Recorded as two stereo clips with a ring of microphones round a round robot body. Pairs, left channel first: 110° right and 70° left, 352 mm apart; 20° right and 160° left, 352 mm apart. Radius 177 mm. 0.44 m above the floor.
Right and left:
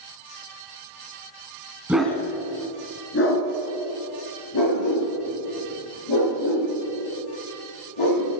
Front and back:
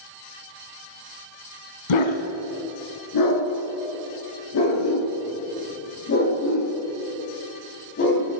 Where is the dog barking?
20° right, 1.5 m; by 8.3 s 85° right, 7.5 m.